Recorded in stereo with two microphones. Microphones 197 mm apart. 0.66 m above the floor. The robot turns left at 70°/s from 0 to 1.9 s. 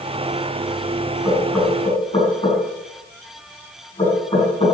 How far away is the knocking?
About 5.5 m.